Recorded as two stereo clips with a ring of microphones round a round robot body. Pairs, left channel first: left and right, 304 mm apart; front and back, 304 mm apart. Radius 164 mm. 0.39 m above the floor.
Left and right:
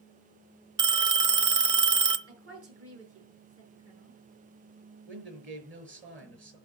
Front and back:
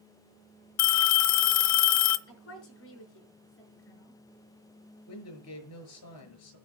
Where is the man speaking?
35° right, 5.5 m.